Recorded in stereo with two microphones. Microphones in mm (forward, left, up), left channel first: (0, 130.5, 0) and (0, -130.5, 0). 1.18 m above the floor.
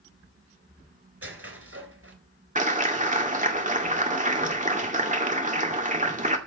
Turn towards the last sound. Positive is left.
turn(degrees=-30)  # may be behind; listen again after turning